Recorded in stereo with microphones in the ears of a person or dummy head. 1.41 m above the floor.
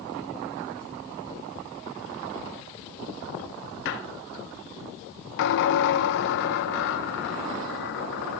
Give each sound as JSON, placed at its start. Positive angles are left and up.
{"t": 3.9, "sound": "a squeak", "side_deg": 65, "distance_m": 1.4}